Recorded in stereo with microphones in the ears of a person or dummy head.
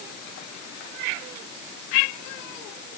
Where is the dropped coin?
I don't hear a dropped coin.